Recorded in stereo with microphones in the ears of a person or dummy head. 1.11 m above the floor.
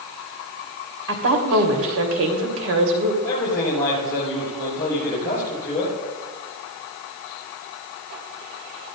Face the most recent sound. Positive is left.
turn(degrees=20)  # may be behind; listen again after turning